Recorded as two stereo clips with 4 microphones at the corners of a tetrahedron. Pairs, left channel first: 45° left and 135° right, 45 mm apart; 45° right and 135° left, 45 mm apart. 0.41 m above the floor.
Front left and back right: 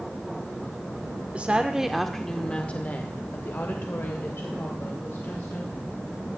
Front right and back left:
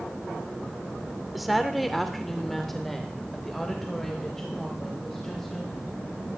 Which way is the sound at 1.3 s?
140° right.